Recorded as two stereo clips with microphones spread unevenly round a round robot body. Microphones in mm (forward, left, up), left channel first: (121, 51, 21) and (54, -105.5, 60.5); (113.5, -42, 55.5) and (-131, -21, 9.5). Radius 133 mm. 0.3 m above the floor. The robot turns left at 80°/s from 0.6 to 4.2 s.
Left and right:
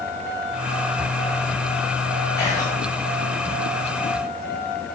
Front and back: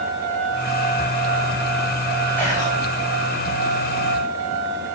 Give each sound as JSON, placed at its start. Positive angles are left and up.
{"t": 2.4, "sound": "whispering", "azimuth_deg": 90, "distance_m": 1.0}